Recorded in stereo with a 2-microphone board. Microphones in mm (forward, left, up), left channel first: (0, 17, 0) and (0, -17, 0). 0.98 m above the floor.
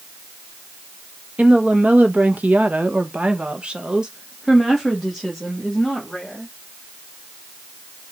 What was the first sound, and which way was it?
A woman speaking, 45° right (ahead or behind).